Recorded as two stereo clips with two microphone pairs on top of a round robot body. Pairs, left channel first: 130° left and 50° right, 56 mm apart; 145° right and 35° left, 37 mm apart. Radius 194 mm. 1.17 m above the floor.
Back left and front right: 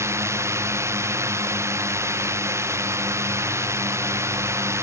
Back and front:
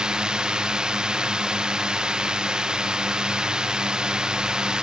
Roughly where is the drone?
Ahead right.